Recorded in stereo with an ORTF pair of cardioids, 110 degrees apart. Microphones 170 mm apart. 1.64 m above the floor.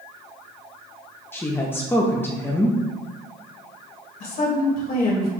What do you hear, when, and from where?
1.3 s a woman speaking: 15° left, 0.6 m
4.2 s a woman speaking: 60° left, 1.9 m